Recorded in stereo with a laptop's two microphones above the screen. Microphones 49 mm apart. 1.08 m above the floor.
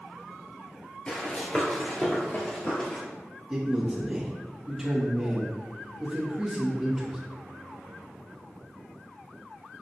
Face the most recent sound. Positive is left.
turn(degrees=-5)  # may be behind; listen again after turning